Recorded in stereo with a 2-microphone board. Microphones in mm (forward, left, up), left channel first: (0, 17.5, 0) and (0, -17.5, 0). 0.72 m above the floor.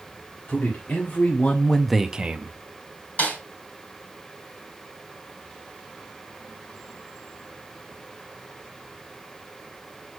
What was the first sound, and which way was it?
A man speaking, 70° left (ahead or behind).